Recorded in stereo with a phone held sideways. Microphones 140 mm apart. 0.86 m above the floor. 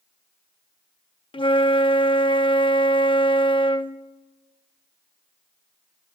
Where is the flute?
35° left (ahead or behind), 0.6 m.